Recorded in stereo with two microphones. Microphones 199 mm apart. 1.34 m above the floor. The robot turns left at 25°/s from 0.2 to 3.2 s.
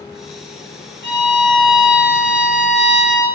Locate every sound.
1.0 s a violin: 80° right, 1.3 m; by 3.3 s 135° right, 1.3 m